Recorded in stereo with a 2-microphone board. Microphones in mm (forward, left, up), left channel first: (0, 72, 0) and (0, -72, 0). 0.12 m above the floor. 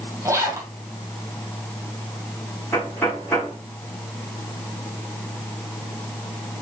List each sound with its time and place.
0.2 s a zipper: 20° right (ahead or behind), 1.8 m
2.7 s knocking: 20° left (ahead or behind), 5.5 m